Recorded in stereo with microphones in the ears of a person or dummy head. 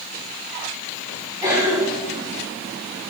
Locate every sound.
1.4 s a cough: 15° right (ahead or behind), 5 m